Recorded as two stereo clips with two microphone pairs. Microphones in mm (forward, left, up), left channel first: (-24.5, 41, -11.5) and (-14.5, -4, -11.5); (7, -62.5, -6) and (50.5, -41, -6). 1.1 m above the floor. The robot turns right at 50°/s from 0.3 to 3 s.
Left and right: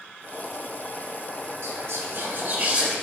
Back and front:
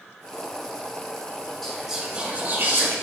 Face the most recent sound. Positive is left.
turn(degrees=10)